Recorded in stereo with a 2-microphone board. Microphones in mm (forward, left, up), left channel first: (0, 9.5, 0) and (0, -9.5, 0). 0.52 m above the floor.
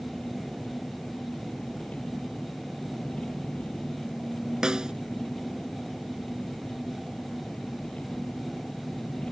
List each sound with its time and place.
0.0 s an engine running: 80° left
4.6 s a snare drum: 35° right (ahead or behind)